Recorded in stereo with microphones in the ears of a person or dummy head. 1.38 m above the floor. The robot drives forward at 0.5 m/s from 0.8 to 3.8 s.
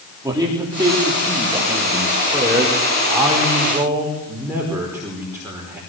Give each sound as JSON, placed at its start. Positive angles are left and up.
{"t": 0.2, "sound": "a man speaking", "side_deg": -10, "distance_m": 3.5}